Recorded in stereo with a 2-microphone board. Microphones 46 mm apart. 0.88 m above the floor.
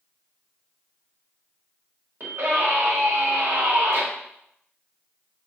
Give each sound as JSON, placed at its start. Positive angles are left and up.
{"t": 2.2, "sound": "a scream", "side_deg": -75, "distance_m": 1.4}